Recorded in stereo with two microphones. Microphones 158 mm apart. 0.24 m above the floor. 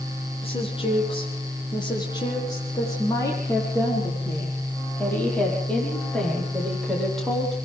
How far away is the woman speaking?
About 10 m.